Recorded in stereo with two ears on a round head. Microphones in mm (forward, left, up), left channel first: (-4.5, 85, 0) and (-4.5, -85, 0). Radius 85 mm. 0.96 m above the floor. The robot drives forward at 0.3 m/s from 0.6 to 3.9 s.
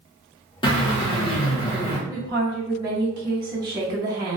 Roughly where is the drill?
Left.